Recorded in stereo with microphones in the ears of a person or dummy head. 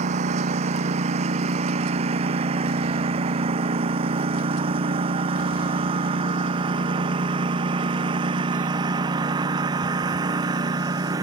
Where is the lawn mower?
35° right (ahead or behind); by 11.2 s 20° right (ahead or behind).